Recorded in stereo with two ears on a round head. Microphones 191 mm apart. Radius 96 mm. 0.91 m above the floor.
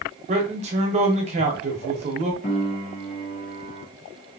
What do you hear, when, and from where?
0.3 s a man speaking: 30° right (ahead or behind), 0.9 m
2.4 s a piano: 40° left (ahead or behind), 0.9 m